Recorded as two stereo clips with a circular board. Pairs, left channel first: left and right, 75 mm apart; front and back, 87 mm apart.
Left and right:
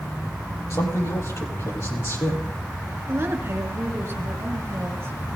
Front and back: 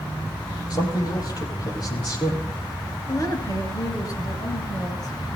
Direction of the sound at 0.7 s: 40° left.